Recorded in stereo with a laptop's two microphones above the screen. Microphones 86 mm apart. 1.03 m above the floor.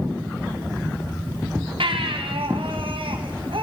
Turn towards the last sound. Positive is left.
turn(degrees=-80)